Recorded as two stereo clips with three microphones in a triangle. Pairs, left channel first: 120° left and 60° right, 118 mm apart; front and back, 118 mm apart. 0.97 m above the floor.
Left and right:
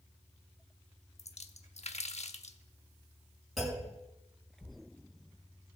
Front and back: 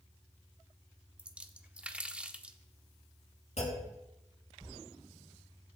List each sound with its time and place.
1.2 s a splash: 100° left, 0.9 m
3.6 s a clunk: 30° left, 6.5 m